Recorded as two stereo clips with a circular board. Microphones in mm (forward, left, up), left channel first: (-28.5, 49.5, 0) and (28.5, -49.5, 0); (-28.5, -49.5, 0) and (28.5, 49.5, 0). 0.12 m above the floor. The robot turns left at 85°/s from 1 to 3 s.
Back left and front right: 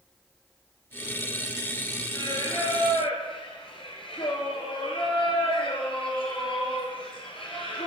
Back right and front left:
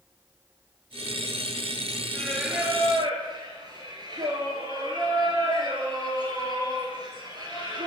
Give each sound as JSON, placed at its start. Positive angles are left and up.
{"t": 2.1, "sound": "singing", "azimuth_deg": 170, "distance_m": 1.2}